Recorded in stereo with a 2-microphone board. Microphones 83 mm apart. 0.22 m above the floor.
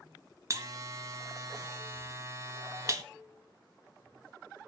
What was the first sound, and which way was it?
A buzzer, 40° right (ahead or behind).